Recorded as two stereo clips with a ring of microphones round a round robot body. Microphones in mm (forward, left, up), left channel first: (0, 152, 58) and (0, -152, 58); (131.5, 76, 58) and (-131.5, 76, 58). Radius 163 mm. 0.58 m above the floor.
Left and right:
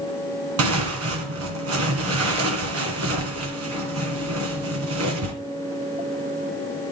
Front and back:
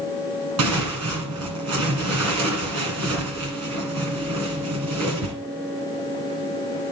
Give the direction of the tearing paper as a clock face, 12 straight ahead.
5 o'clock.